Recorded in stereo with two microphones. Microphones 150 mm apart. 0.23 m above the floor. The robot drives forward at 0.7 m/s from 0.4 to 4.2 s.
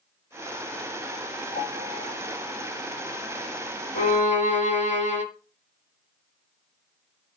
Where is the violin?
55° left (ahead or behind), 1.4 m.